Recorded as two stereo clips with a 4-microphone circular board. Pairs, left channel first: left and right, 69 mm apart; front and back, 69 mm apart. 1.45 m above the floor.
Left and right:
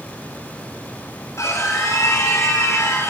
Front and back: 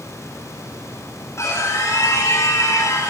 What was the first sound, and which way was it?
A scream, 45° left.